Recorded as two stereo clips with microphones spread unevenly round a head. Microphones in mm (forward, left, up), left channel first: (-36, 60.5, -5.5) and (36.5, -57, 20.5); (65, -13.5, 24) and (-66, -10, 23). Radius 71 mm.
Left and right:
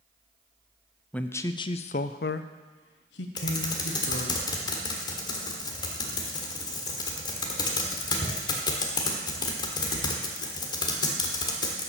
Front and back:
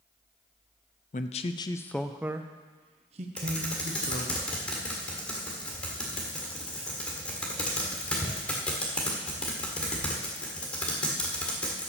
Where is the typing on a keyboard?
70° left, 1.5 m.